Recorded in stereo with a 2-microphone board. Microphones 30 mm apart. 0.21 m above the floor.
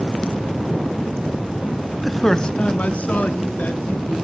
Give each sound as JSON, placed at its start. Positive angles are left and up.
{"t": 2.0, "sound": "a man speaking", "side_deg": 0, "distance_m": 1.0}